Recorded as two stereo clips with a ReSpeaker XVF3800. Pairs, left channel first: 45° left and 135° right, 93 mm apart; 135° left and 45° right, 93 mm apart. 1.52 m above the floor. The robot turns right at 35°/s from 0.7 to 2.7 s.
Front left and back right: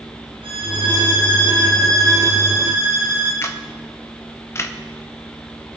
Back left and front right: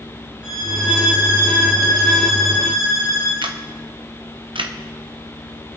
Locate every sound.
0.4 s a violin: 135° right, 8 m; by 3.3 s 65° right, 8 m
3.4 s a camera shutter: 15° right, 1.0 m